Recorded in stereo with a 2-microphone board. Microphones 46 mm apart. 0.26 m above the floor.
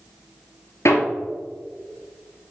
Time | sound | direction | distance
0.8 | hammering | 70° left (ahead or behind) | 1.5 m